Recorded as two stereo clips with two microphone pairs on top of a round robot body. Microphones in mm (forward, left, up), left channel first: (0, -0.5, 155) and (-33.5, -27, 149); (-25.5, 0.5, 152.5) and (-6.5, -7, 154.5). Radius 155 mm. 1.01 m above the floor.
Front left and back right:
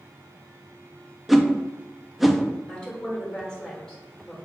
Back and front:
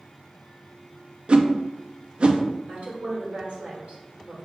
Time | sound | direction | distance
1.3 | a whoosh | 60° right | 0.6 m
2.7 | a woman speaking | 40° right | 2 m